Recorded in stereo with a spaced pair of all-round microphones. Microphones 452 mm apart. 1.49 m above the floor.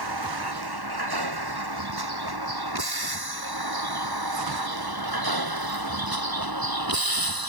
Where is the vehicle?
60° right (ahead or behind); by 7.5 s 55° right (ahead or behind).